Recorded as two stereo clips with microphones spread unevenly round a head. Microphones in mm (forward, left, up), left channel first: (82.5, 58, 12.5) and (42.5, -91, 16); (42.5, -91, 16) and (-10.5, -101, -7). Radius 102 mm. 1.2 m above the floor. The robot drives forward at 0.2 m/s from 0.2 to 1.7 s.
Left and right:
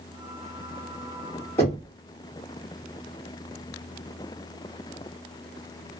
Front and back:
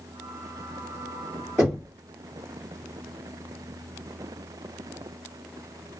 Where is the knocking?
150° left, 1.2 m.